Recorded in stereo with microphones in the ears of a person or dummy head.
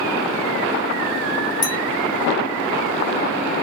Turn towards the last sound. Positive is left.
turn(degrees=15)  # may be behind; listen again after turning